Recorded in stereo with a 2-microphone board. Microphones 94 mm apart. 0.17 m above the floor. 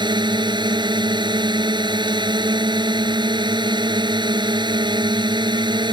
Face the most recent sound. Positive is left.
turn(degrees=-55)  # may be behind; listen again after turning